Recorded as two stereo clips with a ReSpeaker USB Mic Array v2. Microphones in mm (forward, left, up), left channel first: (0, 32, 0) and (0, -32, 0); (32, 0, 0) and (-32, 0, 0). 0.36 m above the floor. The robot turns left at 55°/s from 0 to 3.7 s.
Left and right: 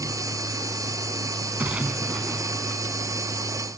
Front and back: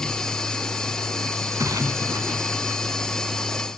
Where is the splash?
150° right, 1.1 m; by 2.8 s 140° left, 1.1 m.